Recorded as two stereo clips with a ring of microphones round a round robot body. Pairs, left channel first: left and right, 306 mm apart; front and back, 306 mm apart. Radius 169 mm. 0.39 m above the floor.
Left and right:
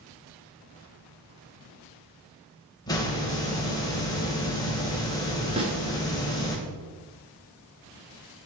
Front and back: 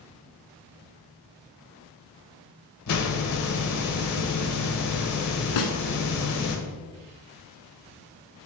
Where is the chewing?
No chewing in this recording.